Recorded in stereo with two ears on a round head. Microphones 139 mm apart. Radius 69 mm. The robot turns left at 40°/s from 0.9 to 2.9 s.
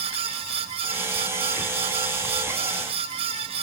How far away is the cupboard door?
I don't hear a cupboard door.